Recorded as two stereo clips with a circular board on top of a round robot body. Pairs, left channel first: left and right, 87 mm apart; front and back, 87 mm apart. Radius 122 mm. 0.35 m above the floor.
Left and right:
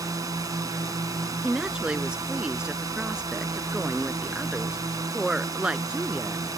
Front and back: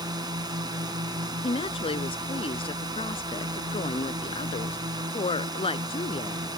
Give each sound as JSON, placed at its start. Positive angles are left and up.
{"t": 0.0, "sound": "a drone", "azimuth_deg": -140}
{"t": 1.4, "sound": "a woman speaking", "azimuth_deg": -10}